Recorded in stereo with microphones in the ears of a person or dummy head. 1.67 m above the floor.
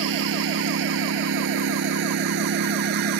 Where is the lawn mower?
80° right; by 3.2 s 65° right (ahead or behind).